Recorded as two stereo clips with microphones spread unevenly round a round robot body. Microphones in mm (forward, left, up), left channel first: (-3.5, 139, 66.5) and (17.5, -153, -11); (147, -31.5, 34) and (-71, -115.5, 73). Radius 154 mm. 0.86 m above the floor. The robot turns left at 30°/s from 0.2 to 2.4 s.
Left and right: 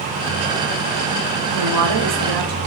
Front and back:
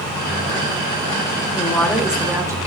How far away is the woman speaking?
About 3.5 m.